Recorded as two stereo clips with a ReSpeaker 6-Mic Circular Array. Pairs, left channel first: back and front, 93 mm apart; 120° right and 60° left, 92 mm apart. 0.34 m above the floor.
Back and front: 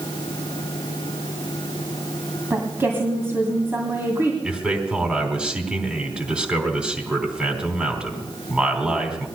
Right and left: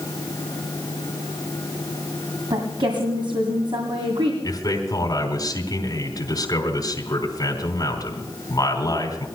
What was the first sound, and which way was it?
A woman speaking, 65° left.